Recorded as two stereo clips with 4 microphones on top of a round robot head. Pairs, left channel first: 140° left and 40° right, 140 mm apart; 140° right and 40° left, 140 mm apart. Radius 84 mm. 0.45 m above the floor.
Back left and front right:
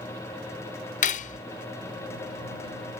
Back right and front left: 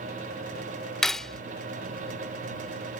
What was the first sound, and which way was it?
Cutlery clinking, 130° left.